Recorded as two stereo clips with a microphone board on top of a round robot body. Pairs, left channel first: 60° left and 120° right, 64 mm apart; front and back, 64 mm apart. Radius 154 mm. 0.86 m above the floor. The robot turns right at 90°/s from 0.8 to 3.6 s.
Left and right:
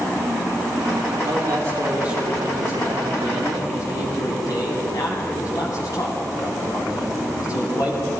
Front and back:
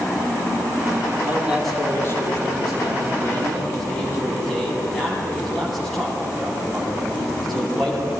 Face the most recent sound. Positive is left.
turn(degrees=85)